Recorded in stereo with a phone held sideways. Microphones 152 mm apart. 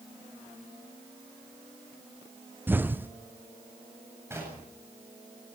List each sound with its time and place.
2.7 s an explosion: 15° right (ahead or behind), 0.6 m
4.3 s knocking: 15° right (ahead or behind), 8.5 m